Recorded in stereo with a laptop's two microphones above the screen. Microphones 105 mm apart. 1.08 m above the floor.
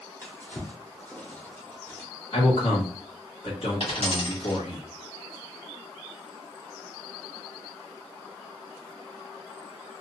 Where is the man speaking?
70° left (ahead or behind), 1.7 m.